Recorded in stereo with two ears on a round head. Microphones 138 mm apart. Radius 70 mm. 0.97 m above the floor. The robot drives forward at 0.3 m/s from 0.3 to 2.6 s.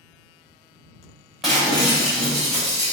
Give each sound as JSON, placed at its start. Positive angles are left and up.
{"t": 1.4, "sound": "breaking glass", "side_deg": -5, "distance_m": 2.0}